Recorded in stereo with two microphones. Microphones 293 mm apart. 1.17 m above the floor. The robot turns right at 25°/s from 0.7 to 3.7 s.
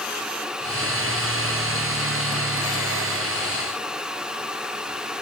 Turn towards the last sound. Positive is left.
No sound to turn to.